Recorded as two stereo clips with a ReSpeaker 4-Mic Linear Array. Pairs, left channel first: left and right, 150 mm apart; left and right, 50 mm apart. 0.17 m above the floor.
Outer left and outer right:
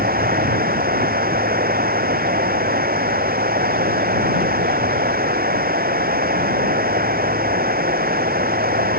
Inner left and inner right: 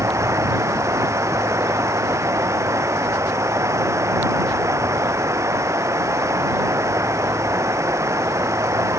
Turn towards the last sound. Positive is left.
turn(degrees=-85)